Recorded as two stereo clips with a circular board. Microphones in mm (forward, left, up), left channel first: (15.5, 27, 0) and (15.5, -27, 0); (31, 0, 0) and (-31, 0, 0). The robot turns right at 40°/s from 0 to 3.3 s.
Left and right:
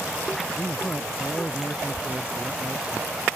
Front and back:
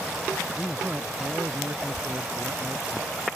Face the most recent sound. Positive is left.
turn(degrees=-150)